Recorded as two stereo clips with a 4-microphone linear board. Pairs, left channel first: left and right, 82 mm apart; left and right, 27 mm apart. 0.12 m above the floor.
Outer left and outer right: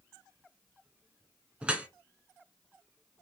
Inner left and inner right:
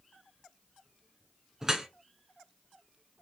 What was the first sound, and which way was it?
Dripping, 15° right (ahead or behind).